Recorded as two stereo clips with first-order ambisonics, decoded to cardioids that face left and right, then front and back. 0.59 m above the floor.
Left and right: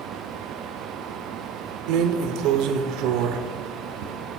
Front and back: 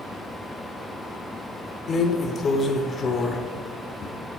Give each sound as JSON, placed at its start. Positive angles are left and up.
{"t": 1.9, "sound": "a drawer", "azimuth_deg": -65, "distance_m": 0.8}